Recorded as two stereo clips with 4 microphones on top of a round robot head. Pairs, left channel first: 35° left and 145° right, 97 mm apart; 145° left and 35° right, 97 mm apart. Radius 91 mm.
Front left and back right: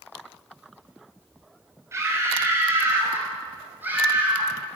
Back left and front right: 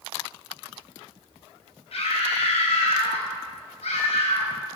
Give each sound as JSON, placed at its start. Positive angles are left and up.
{"t": 1.9, "sound": "a scream", "azimuth_deg": 155, "distance_m": 5.0}